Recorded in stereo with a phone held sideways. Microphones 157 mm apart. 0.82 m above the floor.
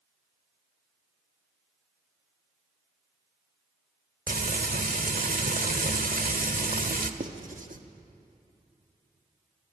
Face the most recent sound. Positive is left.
turn(degrees=-55)  # may be behind; listen again after turning